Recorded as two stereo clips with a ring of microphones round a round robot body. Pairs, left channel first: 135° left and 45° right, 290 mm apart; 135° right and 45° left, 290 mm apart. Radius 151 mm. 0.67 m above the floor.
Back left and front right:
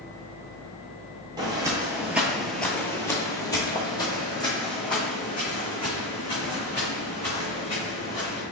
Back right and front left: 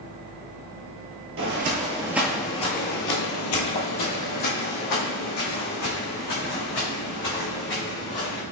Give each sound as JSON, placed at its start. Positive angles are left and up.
{"t": 1.4, "sound": "footsteps", "azimuth_deg": 25, "distance_m": 0.8}